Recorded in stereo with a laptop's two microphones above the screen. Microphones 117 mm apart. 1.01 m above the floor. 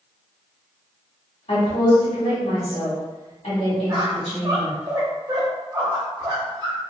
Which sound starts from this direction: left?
A woman speaking, at 1.5 s.